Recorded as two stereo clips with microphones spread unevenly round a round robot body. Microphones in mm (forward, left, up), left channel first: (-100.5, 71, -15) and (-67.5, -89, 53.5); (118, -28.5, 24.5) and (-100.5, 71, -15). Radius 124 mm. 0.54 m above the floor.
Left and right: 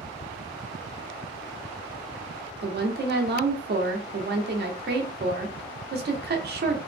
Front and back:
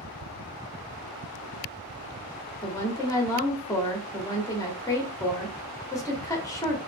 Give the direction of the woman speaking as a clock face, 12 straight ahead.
4 o'clock.